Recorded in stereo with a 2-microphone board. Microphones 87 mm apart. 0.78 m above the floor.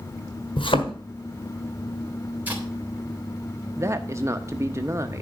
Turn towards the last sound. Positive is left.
turn(degrees=-35)  # may be behind; listen again after turning